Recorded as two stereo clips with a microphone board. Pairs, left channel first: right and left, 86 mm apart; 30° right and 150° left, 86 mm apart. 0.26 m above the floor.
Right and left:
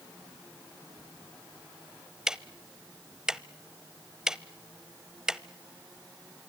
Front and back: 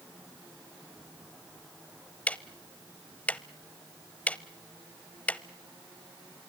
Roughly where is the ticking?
Ahead.